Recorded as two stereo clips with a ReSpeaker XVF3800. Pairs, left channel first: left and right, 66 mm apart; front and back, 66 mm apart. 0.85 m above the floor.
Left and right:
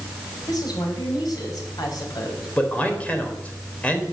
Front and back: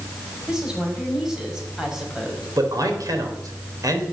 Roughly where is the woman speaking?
Left.